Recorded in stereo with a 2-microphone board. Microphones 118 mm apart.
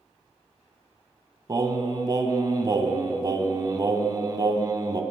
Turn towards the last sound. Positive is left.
turn(degrees=-35)  # may be behind; listen again after turning